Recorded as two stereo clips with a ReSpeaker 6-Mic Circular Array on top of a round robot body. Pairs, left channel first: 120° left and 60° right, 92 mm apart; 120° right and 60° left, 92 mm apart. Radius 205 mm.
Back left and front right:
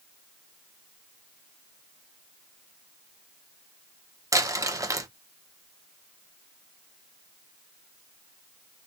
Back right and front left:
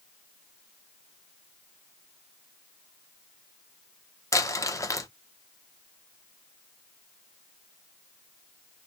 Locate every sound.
4.3 s crumpling: 90° right, 0.9 m